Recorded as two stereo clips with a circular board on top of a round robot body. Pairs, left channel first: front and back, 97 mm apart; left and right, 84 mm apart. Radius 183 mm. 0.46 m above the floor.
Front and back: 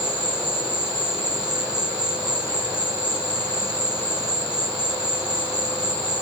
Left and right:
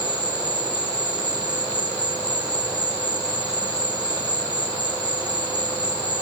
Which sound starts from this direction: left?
An insect, at 0.0 s.